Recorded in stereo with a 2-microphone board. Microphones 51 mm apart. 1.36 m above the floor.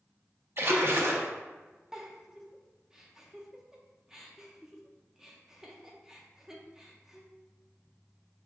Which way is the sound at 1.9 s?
10° right (ahead or behind).